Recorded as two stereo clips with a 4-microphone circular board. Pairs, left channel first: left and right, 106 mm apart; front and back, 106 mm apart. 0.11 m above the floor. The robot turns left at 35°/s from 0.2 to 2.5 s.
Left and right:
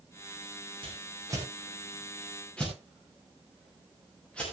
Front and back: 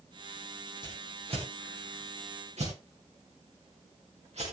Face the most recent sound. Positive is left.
turn(degrees=170)